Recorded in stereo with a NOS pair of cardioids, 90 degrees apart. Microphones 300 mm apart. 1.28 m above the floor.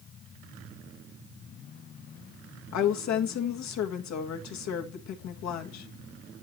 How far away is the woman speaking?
About 1.7 m.